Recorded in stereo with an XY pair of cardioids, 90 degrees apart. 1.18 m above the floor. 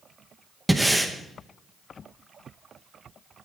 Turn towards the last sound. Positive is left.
turn(degrees=-5)